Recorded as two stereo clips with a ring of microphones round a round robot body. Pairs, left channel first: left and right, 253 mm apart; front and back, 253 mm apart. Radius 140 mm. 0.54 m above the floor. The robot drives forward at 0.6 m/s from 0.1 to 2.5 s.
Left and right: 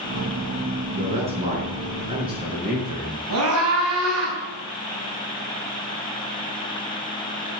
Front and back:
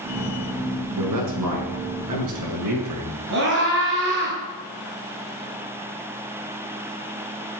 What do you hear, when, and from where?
1.0 s a man speaking: 160° right, 5.5 m
3.3 s a scream: 130° right, 4.5 m